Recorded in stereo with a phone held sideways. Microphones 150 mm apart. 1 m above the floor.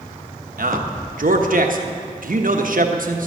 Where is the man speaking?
70° right (ahead or behind), 1.1 m.